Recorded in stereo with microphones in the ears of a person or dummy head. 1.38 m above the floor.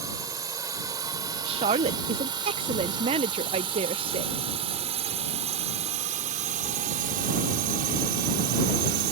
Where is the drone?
15° right (ahead or behind); by 9.1 s 55° right (ahead or behind).